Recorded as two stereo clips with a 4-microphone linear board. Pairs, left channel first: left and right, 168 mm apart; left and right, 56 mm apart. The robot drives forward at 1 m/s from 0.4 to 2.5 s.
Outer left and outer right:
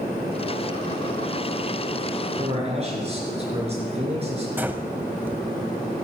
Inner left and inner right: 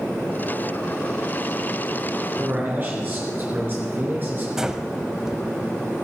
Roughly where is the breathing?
Centre.